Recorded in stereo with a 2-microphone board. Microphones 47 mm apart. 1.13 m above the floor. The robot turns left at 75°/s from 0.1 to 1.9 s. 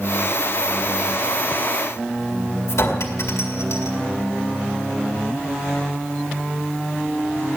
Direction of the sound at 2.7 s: 85° left.